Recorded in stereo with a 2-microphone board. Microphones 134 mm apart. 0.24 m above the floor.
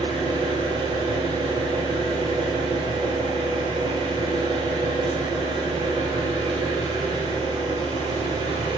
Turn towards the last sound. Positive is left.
turn(degrees=-35)  # may be behind; listen again after turning